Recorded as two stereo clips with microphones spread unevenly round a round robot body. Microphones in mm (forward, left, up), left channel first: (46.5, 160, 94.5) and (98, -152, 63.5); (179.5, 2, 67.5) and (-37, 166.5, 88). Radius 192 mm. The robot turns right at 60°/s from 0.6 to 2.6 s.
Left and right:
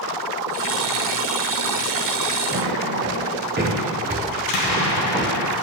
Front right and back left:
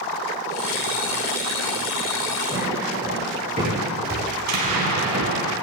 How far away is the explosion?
About 3 m.